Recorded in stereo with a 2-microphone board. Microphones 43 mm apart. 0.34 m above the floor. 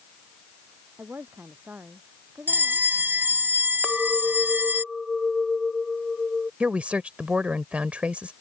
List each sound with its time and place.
1.0 s a woman speaking: 45° right (ahead or behind)
2.5 s a bell: 50° right (ahead or behind)
3.8 s a clink: 5° right (ahead or behind)
6.6 s a woman speaking: 30° right (ahead or behind)